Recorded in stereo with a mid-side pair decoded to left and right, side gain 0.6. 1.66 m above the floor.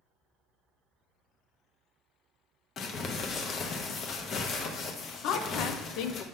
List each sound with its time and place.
2.8 s crumpling: 45° left, 1.0 m
5.2 s a woman speaking: 70° left, 0.7 m